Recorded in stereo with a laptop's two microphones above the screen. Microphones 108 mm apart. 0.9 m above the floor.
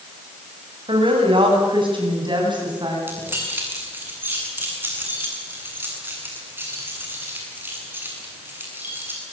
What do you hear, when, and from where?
0.9 s a woman speaking: 50° right (ahead or behind), 8 m; by 3.0 s 40° right (ahead or behind), 10 m
3.1 s keys jangling: 20° right (ahead or behind), 7.5 m